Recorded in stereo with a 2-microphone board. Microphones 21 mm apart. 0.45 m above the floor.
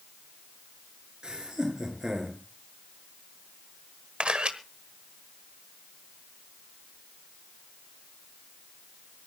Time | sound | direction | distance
1.2 | laughter | 30° right (ahead or behind) | 6.5 m
4.2 | a camera shutter | 60° right (ahead or behind) | 1.3 m